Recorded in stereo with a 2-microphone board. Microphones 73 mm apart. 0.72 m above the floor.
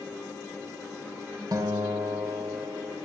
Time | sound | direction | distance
1.5 | a guitar | 65° right (ahead or behind) | 3.5 m